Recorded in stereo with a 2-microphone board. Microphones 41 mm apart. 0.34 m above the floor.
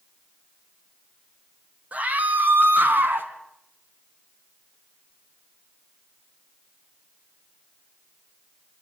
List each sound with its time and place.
1.9 s a scream: 35° right (ahead or behind), 2 m; by 3.3 s 60° right (ahead or behind), 2.5 m